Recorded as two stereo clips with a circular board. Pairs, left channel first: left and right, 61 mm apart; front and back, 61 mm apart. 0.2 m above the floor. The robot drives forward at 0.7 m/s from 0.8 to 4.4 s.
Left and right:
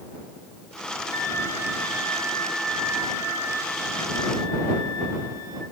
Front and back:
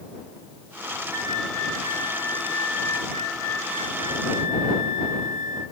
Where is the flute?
75° right, 7 m; by 5.6 s 95° right, 6.5 m.